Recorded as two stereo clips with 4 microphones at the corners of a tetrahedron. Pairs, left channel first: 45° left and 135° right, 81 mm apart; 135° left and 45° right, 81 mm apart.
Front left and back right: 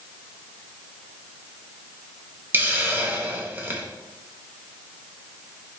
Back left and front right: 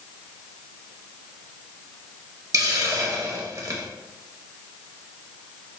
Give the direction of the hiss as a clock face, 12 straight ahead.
3 o'clock.